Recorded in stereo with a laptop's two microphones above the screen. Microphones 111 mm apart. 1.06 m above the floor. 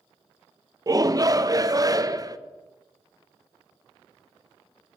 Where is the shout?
35° right (ahead or behind), 0.6 m.